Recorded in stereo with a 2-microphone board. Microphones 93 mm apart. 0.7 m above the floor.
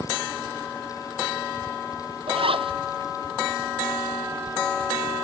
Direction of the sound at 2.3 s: 75° right (ahead or behind).